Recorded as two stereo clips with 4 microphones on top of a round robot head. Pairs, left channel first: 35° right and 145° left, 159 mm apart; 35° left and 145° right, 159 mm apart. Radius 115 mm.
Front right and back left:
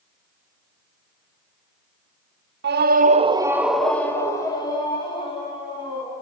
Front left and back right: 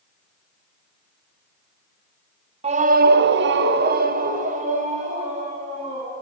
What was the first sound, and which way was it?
A scream, 160° left.